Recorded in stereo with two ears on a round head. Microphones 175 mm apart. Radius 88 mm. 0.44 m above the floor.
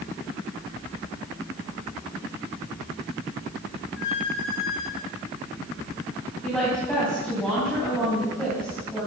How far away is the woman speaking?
About 3.5 m.